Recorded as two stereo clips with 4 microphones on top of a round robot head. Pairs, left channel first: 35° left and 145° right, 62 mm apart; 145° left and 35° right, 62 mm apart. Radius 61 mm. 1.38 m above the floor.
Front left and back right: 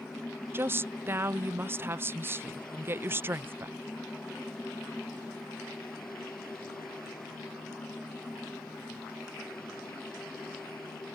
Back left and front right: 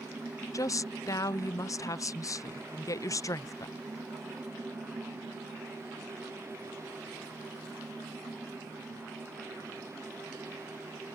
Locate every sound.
0.5 s a woman speaking: 165° left